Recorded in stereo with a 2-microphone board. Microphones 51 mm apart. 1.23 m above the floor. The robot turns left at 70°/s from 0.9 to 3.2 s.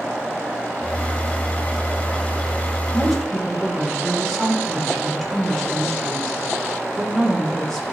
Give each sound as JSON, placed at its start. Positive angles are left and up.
{"t": 2.9, "sound": "a woman speaking", "side_deg": -15, "distance_m": 5.0}